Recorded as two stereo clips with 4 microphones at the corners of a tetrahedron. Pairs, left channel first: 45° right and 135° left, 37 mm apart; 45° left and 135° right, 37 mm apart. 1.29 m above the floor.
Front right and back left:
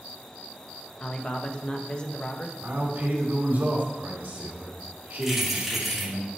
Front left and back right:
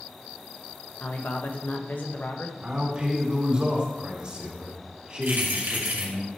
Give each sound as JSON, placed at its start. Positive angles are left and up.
{"t": 1.0, "sound": "a man speaking", "azimuth_deg": 15, "distance_m": 1.3}
{"t": 2.6, "sound": "a man speaking", "azimuth_deg": 165, "distance_m": 2.5}
{"t": 5.2, "sound": "keys jangling", "azimuth_deg": -135, "distance_m": 2.5}